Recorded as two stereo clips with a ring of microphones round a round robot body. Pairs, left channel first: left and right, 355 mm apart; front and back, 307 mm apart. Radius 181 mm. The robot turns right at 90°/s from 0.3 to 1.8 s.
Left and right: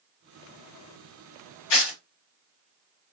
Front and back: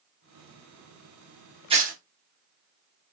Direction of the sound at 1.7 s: 105° left.